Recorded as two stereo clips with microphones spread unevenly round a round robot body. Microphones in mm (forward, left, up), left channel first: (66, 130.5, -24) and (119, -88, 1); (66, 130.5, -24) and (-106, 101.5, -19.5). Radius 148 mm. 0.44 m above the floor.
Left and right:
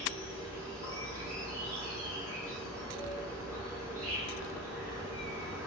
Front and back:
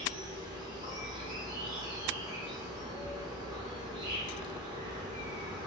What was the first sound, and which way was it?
An insect, 150° right.